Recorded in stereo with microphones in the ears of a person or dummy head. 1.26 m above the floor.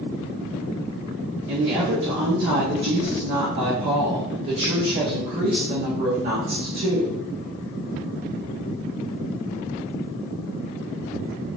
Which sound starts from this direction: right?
A woman speaking, at 1.5 s.